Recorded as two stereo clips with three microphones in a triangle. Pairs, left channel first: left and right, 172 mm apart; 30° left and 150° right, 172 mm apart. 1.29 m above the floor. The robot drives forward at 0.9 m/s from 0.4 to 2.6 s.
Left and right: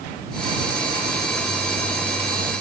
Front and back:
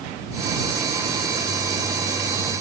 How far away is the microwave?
I don't hear a microwave.